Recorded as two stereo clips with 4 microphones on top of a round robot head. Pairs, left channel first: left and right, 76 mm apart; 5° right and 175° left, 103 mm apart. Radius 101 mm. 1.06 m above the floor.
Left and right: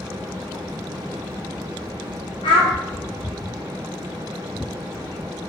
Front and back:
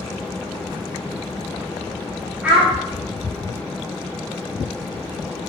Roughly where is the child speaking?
Left.